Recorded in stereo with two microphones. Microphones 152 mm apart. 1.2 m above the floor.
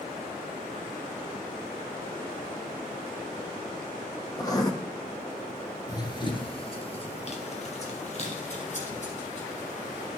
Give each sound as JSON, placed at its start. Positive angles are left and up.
{"t": 4.4, "sound": "writing", "side_deg": 25, "distance_m": 0.9}
{"t": 5.9, "sound": "running footsteps", "side_deg": 25, "distance_m": 1.2}